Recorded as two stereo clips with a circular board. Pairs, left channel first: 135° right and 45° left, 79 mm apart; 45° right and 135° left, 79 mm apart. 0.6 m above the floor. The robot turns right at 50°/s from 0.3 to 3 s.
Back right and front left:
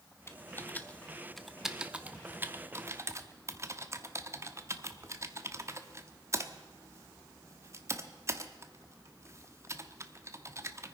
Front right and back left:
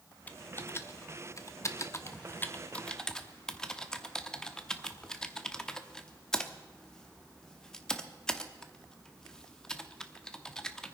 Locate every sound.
0.3 s typing on a keyboard: 100° right, 0.9 m; by 11.0 s 35° left, 0.9 m